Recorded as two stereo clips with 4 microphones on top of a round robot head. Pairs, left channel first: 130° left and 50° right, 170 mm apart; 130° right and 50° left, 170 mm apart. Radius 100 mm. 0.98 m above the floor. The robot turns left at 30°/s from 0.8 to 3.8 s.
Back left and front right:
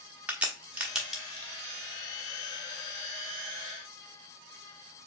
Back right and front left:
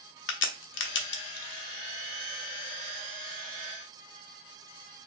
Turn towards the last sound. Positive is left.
turn(degrees=135)